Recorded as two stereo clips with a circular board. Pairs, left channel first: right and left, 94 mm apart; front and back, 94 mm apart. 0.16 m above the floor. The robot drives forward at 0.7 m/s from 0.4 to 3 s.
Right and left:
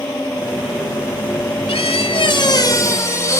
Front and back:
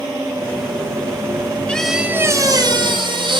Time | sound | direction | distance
1.7 | a squeak | 75° right | 0.5 m